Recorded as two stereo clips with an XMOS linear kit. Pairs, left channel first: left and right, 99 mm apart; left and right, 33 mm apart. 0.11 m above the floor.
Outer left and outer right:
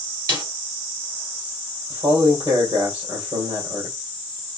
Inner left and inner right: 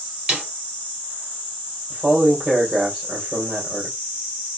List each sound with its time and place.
0.3 s a snare drum: 35° right (ahead or behind), 2.5 m
1.9 s a man speaking: 50° right (ahead or behind), 3 m